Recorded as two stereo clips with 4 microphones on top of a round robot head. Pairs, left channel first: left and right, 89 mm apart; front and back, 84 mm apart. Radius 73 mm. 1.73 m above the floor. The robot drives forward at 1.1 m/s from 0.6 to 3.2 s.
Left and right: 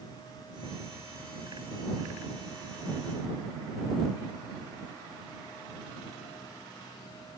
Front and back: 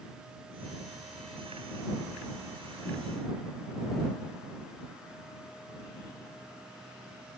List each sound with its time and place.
Only background noise.